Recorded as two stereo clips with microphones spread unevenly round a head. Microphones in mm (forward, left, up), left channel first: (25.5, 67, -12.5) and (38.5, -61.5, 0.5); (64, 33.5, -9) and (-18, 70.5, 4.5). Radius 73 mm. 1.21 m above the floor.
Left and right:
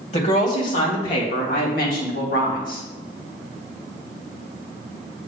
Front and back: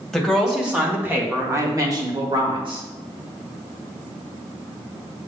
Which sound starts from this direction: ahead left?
A woman speaking, at 0.1 s.